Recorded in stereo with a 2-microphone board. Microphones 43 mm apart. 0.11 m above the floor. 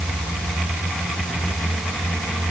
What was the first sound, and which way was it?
Only background noise.